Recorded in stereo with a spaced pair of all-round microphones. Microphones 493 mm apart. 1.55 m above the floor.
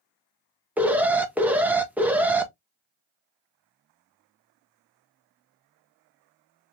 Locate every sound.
0.8 s an alarm: 5° right (ahead or behind), 0.6 m